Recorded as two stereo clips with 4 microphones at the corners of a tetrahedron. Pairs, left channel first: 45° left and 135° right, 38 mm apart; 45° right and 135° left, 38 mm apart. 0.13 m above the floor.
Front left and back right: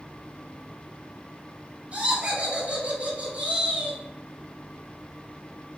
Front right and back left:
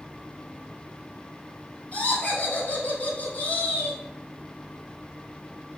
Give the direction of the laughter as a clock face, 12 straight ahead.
3 o'clock.